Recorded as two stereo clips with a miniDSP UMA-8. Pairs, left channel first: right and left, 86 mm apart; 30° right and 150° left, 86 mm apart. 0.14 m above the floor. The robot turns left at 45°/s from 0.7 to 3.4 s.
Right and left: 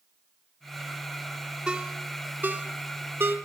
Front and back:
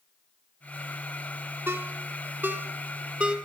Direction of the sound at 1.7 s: 160° left.